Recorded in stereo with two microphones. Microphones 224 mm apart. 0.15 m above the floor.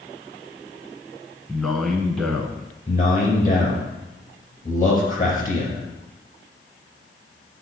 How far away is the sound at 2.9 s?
About 3.5 m.